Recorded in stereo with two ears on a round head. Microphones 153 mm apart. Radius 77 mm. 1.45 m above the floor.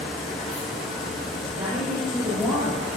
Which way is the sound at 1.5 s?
35° right (ahead or behind).